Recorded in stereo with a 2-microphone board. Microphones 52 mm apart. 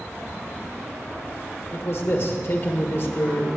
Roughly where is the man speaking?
Left.